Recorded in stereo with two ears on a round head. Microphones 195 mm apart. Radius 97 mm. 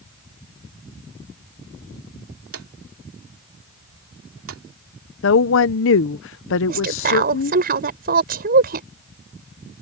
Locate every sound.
2.5 s a drawer: 70° right (ahead or behind)
5.2 s a woman speaking: 60° left (ahead or behind)
6.7 s a woman speaking: 45° right (ahead or behind)